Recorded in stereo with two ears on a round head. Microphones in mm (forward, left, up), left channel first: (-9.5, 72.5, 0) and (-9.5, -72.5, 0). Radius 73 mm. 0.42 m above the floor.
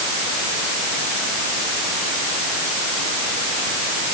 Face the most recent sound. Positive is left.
No sound to turn to.